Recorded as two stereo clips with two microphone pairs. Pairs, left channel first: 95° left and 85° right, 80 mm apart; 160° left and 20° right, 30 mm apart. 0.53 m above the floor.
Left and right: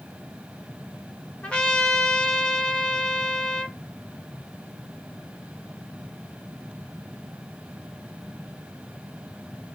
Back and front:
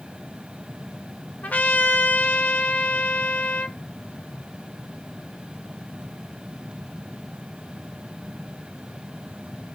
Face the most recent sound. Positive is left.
turn(degrees=175)